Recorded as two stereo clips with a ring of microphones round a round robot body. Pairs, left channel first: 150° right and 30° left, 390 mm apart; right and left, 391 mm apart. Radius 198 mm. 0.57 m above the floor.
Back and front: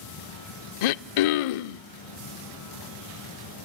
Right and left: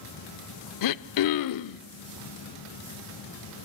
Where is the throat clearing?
135° right, 0.6 m.